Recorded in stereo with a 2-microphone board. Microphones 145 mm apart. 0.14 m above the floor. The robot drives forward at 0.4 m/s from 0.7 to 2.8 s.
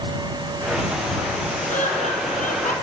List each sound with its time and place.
1.7 s laughter: 65° left (ahead or behind), 4 m